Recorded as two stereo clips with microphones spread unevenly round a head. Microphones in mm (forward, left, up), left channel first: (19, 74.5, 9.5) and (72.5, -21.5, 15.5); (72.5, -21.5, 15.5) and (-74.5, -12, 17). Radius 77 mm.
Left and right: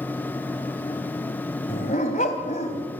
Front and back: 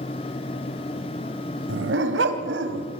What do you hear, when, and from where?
1.7 s a dog barking: 170° left, 2.5 m